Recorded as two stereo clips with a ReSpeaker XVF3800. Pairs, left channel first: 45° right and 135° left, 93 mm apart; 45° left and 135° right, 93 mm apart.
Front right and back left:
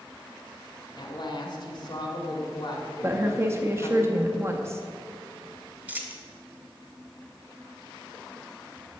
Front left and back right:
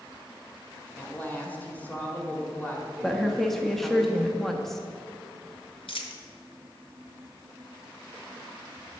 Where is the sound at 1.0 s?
25° right, 1.8 m.